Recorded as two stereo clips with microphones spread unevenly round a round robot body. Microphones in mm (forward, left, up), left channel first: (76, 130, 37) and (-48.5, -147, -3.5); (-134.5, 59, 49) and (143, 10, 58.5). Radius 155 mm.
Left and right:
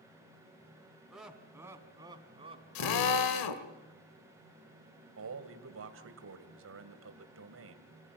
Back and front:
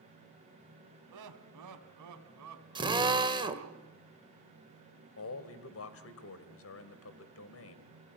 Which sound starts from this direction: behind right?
A man speaking, at 5.2 s.